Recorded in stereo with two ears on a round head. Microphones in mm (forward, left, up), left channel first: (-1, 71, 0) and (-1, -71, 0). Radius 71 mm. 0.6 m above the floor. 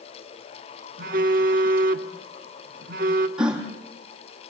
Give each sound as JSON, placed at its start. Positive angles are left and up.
{"t": 1.0, "sound": "a phone buzzing", "side_deg": -55, "distance_m": 1.3}
{"t": 3.4, "sound": "a gasp", "side_deg": -5, "distance_m": 4.0}